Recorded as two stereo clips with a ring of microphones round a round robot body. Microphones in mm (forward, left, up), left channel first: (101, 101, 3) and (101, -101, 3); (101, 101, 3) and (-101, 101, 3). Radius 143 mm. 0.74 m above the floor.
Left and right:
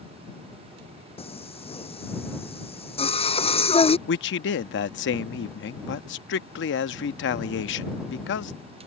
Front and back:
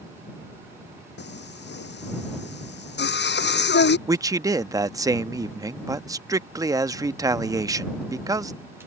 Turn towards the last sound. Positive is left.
turn(degrees=110)